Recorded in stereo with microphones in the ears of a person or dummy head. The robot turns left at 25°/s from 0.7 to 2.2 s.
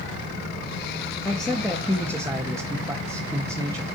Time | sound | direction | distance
1.2 | a man speaking | 10° left (ahead or behind) | 1.4 m